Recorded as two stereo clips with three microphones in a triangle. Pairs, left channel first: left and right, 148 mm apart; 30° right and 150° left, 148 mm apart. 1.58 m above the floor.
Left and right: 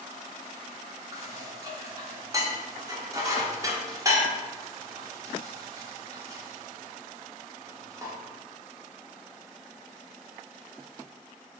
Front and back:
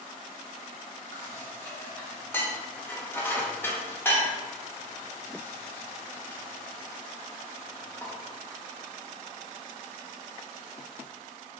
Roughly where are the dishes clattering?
Right.